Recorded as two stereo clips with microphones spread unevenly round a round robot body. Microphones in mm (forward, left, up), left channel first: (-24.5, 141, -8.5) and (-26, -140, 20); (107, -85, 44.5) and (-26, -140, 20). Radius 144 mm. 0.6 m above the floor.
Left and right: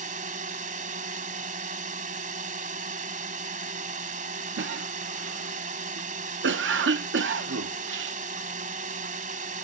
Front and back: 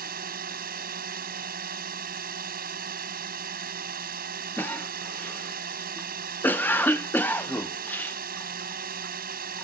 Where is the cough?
60° right.